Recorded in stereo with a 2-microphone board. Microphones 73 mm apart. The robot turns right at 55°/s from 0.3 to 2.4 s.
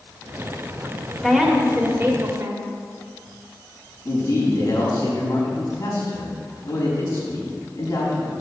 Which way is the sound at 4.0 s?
45° left (ahead or behind).